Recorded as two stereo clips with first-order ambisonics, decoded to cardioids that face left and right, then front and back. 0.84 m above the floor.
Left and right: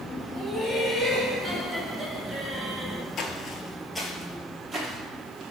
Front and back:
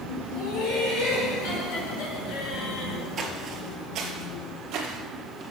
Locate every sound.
0.3 s laughter: straight ahead, 2.5 m; by 3.0 s 25° right, 1.1 m
3.2 s footsteps: 125° left, 1.0 m; by 5.4 s 155° right, 1.6 m